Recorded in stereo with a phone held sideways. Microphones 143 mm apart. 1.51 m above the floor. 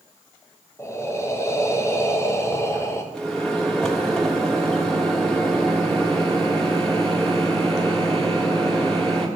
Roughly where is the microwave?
Centre.